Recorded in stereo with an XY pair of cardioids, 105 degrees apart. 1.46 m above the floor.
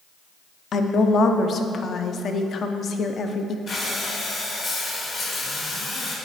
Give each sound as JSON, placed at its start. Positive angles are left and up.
{"t": 0.7, "sound": "a woman speaking", "azimuth_deg": 50, "distance_m": 0.6}
{"t": 3.7, "sound": "breathing", "azimuth_deg": 50, "distance_m": 2.0}